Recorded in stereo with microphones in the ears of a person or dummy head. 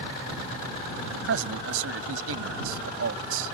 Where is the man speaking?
85° right.